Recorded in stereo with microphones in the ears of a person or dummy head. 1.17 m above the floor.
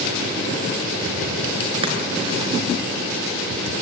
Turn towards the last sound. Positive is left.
turn(degrees=-30)  # may be behind; listen again after turning